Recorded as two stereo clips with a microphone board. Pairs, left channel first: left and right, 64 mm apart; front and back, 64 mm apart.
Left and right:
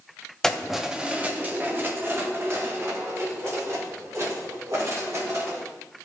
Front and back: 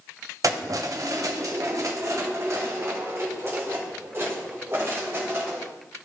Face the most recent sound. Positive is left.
turn(degrees=-125)